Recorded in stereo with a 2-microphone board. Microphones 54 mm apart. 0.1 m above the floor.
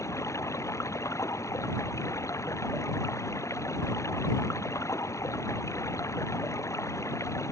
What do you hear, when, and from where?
0.0 s running water: 70° left (ahead or behind)